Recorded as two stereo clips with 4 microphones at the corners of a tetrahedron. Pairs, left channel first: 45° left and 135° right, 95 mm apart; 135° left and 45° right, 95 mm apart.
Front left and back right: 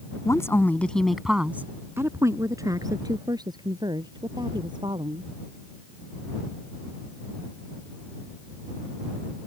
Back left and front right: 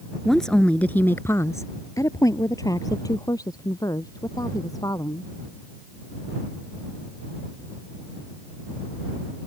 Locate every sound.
0.2 s a woman speaking: 50° left; by 5.3 s 175° right